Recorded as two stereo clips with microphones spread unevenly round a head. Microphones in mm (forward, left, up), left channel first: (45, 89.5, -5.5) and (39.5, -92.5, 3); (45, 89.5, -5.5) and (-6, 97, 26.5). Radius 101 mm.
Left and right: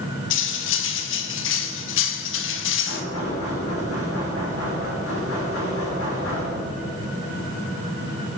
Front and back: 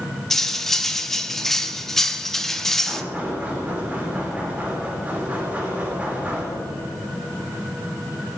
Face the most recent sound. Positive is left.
turn(degrees=110)